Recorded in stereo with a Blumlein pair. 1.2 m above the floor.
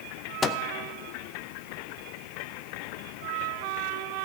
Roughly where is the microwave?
Ahead.